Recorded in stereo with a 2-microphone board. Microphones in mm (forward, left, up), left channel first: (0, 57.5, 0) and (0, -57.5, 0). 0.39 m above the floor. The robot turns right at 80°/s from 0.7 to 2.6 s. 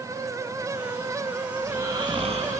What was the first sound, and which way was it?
Snoring, 170° right.